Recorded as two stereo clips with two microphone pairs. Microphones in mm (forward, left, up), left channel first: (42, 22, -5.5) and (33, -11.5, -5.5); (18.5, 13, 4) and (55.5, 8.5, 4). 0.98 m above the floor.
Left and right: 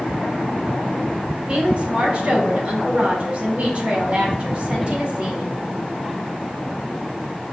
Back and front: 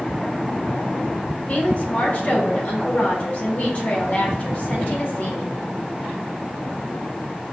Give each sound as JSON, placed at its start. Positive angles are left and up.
{"t": 1.5, "sound": "a woman speaking", "azimuth_deg": -145, "distance_m": 1.4}